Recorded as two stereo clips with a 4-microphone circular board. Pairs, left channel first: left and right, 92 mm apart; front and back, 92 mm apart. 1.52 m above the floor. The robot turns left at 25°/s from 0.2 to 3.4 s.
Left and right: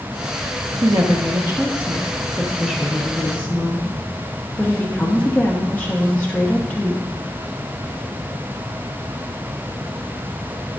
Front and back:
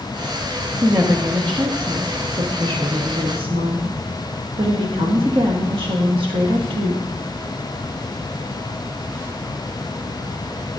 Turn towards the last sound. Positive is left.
turn(degrees=165)